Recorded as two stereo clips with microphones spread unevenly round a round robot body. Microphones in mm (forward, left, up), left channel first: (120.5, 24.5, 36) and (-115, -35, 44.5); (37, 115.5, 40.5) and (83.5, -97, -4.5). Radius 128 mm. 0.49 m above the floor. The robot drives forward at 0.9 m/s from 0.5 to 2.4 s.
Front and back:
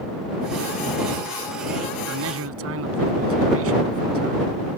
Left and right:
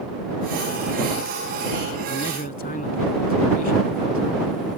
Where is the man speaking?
160° left; by 4.5 s 165° left.